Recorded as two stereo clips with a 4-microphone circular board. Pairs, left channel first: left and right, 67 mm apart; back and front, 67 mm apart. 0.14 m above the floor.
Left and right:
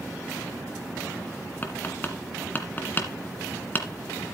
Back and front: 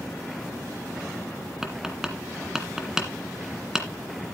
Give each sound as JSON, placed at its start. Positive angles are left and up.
{"t": 1.6, "sound": "tapping", "azimuth_deg": 75, "distance_m": 1.8}